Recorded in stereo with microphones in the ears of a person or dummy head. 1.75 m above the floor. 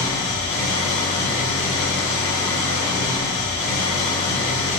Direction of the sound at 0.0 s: 15° left (ahead or behind).